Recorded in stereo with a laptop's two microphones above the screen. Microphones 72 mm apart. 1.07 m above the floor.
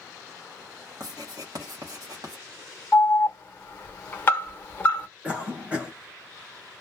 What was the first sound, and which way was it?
Writing, 55° right (ahead or behind).